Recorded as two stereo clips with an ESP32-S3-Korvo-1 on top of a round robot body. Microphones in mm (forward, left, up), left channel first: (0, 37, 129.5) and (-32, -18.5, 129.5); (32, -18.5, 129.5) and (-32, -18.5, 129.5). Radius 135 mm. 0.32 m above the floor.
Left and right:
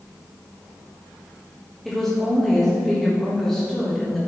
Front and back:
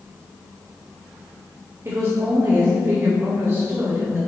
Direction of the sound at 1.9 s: 145° left.